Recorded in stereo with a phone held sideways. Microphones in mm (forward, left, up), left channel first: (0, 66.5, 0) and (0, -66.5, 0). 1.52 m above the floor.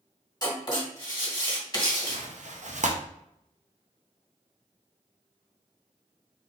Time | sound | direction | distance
0.4 | writing | 30° left (ahead or behind) | 1.8 m
2.1 | tearing paper | 65° right (ahead or behind) | 0.7 m